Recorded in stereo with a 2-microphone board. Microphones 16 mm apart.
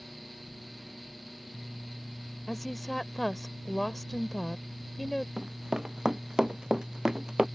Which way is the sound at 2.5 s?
10° left (ahead or behind).